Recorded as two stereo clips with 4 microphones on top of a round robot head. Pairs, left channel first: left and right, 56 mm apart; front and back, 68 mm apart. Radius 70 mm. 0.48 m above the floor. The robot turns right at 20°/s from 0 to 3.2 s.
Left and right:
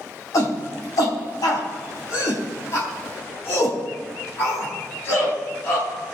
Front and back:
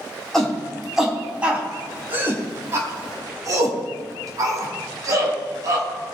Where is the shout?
85° left, 4.5 m; by 6.1 s 140° left, 4.5 m.